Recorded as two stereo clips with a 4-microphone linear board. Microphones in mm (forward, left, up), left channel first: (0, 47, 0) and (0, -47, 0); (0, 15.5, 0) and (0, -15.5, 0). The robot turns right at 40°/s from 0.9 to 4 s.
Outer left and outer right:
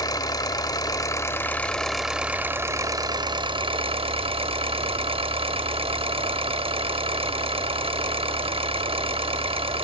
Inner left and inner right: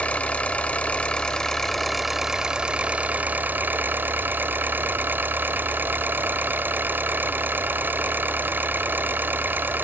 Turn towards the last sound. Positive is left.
turn(degrees=-95)